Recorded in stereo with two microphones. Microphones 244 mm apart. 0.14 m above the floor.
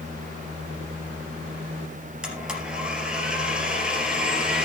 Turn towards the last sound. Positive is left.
turn(degrees=-5)  # may be behind; listen again after turning